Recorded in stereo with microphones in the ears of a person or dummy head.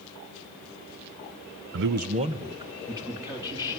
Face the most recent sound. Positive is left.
turn(degrees=-20)  # may be behind; listen again after turning